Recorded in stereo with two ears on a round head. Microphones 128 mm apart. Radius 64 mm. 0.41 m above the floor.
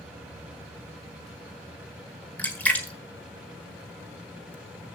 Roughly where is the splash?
Centre.